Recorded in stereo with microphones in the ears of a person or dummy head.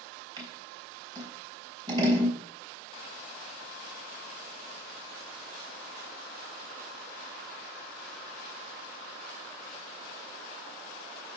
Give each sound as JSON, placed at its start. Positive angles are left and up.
{"t": 0.4, "sound": "scissors", "side_deg": -25, "distance_m": 3.0}